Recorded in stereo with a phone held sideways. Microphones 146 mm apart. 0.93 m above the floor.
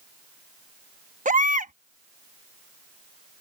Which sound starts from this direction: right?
A baby crying, at 1.2 s.